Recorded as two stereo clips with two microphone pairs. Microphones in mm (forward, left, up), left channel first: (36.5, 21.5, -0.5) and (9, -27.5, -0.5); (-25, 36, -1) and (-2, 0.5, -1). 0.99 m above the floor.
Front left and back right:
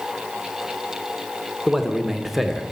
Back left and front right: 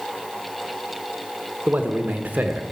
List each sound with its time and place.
1.7 s a man speaking: 35° right, 1.0 m